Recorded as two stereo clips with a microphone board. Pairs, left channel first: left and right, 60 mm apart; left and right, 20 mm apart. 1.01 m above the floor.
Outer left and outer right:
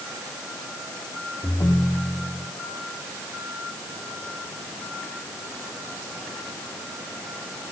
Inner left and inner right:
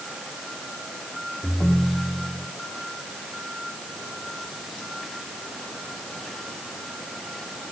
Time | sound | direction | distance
1.4 | a ringtone | 85° left | 1.3 m